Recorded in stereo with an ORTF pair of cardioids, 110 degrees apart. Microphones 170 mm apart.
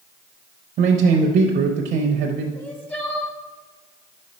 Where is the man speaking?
60° right, 0.8 m.